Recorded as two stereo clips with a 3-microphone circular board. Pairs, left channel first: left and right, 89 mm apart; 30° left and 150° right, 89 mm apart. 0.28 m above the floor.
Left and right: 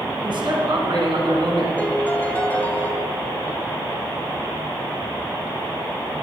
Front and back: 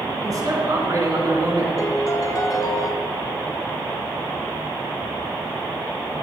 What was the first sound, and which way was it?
A man speaking, 110° right.